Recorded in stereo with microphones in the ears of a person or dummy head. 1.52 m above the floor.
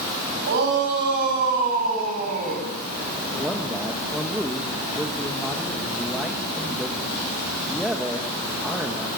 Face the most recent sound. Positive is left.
turn(degrees=0)  # may be behind; listen again after turning